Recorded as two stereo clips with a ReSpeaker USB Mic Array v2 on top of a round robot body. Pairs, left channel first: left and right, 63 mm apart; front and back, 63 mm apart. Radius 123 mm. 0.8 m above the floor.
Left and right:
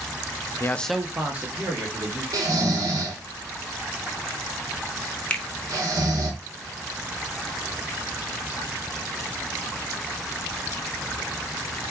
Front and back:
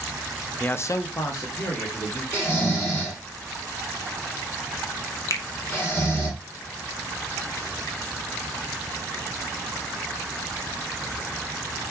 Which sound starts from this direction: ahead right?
Snoring, at 2.3 s.